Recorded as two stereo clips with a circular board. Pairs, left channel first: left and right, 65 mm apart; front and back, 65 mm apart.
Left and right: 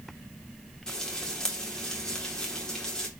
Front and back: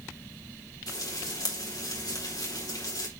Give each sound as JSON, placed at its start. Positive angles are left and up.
{"t": 0.9, "sound": "frying", "azimuth_deg": 10, "distance_m": 4.0}